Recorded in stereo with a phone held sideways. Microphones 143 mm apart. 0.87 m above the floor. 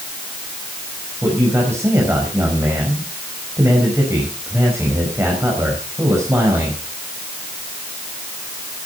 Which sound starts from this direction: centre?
A man speaking, at 1.2 s.